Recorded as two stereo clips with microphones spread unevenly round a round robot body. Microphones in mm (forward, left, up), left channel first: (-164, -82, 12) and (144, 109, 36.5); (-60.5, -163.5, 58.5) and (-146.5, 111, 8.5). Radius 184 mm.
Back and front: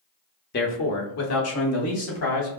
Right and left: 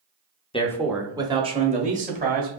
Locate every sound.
0.5 s a man speaking: 145° right, 0.8 m; by 2.5 s 165° left, 2.5 m